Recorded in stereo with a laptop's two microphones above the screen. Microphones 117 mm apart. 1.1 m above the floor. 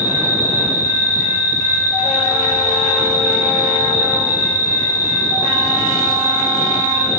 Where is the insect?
25° left (ahead or behind), 1.1 m.